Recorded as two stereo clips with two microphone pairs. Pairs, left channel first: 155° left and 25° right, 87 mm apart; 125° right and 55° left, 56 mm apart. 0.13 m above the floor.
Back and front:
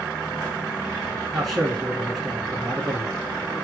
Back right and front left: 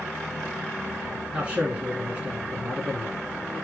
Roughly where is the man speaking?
Ahead left.